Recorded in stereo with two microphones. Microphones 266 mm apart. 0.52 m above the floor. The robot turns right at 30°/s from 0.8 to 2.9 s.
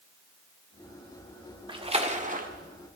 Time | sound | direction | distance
1.7 | a splash | 20° right (ahead or behind) | 1.6 m